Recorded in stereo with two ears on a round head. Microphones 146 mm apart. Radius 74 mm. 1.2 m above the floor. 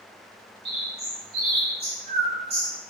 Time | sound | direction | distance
0.7 | a bird | 35° right (ahead or behind) | 5 m